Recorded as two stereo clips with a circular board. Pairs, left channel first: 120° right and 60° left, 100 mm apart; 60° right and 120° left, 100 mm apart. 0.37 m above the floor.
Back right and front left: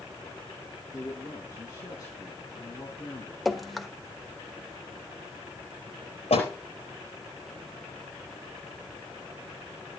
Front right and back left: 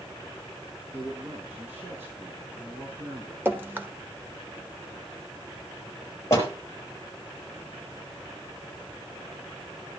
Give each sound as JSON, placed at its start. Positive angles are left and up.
{"t": 0.9, "sound": "a man speaking", "azimuth_deg": -170, "distance_m": 4.0}
{"t": 3.5, "sound": "dripping", "azimuth_deg": 150, "distance_m": 1.2}
{"t": 6.3, "sound": "a door slam", "azimuth_deg": -125, "distance_m": 4.5}